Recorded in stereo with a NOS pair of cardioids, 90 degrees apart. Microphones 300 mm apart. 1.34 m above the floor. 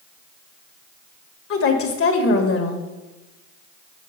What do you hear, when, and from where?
1.5 s a woman speaking: 45° left, 1.2 m